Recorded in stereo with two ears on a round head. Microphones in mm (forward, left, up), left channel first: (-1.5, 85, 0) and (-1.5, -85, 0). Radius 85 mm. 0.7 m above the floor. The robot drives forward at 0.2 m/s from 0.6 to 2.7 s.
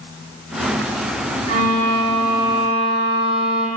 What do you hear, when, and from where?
1.5 s a violin: 55° right (ahead or behind), 1.3 m